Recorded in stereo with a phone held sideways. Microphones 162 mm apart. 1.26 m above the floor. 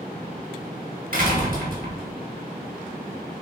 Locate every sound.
1.1 s a door slam: 60° right (ahead or behind), 3.5 m